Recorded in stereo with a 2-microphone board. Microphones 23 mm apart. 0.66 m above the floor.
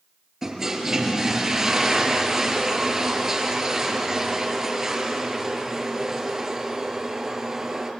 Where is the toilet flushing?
20° right (ahead or behind), 3.5 m.